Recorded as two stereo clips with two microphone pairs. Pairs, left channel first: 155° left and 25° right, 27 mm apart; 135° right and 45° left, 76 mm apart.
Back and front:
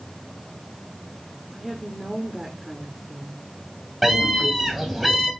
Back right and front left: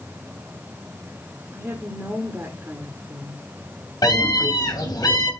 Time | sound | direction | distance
1.5 | a woman speaking | 40° left | 1.4 m
4.0 | a scream | 115° right | 3 m